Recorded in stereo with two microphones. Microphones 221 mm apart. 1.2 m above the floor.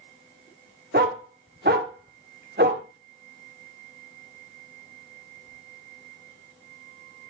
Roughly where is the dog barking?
Right.